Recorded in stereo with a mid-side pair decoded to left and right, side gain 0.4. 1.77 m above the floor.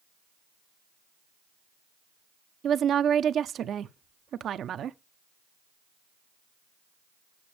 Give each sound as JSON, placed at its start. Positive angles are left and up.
{"t": 2.6, "sound": "a woman speaking", "azimuth_deg": -65, "distance_m": 0.7}